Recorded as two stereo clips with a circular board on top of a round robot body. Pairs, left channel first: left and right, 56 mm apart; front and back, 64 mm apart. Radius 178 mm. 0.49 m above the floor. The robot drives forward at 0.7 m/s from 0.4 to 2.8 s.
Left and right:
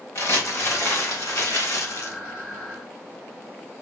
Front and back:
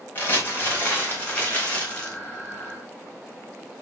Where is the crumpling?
60° left, 5 m; by 2.2 s 70° left, 4.5 m.